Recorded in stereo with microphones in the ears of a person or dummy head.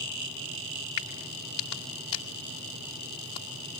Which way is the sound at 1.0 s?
25° left (ahead or behind).